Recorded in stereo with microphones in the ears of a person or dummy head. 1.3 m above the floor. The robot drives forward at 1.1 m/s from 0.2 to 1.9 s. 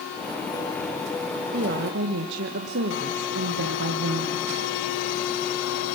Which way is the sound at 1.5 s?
45° right (ahead or behind).